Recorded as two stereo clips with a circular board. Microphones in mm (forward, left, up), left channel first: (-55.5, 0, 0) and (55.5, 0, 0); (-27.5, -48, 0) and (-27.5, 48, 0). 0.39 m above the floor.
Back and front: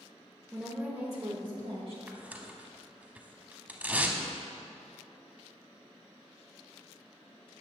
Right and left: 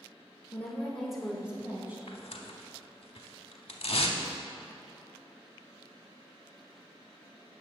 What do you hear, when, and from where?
0.5 s a woman speaking: 95° right, 0.8 m; by 2.0 s 25° left, 1.4 m
2.1 s tearing paper: 75° right, 0.7 m